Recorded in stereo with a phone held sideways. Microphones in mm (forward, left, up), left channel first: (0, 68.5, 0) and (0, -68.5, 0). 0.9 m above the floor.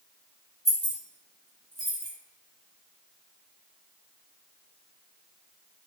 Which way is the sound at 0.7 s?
55° left (ahead or behind).